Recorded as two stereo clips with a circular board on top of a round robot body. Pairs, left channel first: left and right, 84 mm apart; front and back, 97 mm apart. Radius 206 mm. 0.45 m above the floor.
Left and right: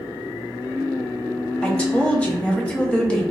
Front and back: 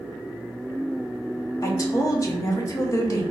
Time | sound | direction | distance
1.6 | a woman speaking | 25° left | 1.2 m